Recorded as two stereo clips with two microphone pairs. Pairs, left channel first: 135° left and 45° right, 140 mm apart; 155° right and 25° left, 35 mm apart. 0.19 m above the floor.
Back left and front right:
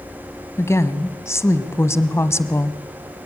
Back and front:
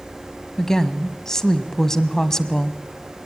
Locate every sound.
0.6 s a woman speaking: 155° left, 1.2 m